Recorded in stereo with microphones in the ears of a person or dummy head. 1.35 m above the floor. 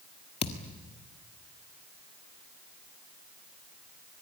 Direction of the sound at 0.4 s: 35° left (ahead or behind).